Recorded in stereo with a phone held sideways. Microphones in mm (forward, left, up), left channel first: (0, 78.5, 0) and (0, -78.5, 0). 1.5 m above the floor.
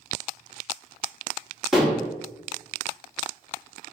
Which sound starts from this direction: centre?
Dishes clattering, at 1.7 s.